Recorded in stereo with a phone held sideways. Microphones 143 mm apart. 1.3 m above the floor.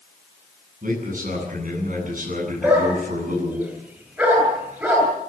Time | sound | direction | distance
0.8 | a man speaking | 70° right (ahead or behind) | 10 m
2.6 | a dog barking | 15° right (ahead or behind) | 9 m